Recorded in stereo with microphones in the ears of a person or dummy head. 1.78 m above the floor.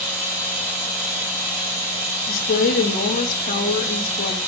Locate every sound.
0.0 s running water: 65° right (ahead or behind), 5 m
2.3 s a woman speaking: 50° left (ahead or behind), 2.5 m